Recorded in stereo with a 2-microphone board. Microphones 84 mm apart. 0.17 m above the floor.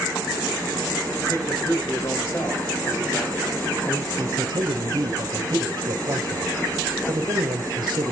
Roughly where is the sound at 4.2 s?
Right.